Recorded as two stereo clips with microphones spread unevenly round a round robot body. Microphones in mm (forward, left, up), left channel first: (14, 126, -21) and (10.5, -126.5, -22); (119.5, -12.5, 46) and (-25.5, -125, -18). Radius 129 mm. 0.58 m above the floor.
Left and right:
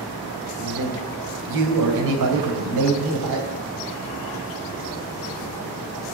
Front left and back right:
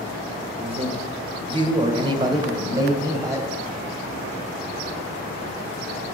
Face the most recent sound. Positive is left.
turn(degrees=-75)